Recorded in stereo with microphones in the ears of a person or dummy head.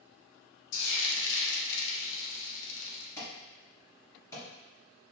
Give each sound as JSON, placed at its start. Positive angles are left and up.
{"t": 0.7, "sound": "frying", "side_deg": 60, "distance_m": 0.8}
{"t": 3.2, "sound": "an alarm", "side_deg": 15, "distance_m": 1.3}